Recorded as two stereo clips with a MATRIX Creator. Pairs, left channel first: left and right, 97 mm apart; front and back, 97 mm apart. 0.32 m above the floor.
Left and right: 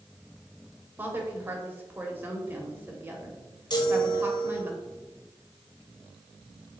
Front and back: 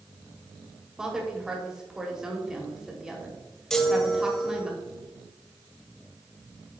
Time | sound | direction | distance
1.0 | a woman speaking | 110° right | 1.5 m
3.7 | a chime | 85° left | 1.0 m